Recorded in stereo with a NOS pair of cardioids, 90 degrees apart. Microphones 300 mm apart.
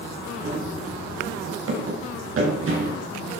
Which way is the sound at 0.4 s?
45° right.